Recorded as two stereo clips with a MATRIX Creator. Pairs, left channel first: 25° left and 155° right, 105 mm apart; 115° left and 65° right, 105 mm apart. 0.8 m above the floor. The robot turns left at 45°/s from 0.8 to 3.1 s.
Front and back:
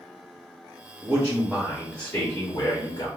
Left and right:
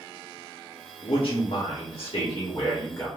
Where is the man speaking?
135° left, 1.0 m; by 3.1 s 40° left, 1.0 m.